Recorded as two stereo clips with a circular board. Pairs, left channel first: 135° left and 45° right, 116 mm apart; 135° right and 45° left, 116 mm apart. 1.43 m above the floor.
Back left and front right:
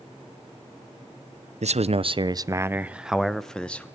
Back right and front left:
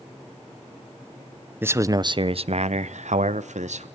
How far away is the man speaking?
About 0.7 m.